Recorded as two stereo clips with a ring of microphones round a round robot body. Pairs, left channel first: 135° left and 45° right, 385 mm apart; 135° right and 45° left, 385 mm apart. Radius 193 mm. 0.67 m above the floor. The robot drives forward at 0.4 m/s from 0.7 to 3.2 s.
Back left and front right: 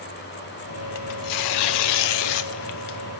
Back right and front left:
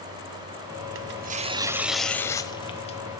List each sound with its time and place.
0.9 s tearing paper: 95° left, 0.5 m; by 3.0 s 150° left, 1.0 m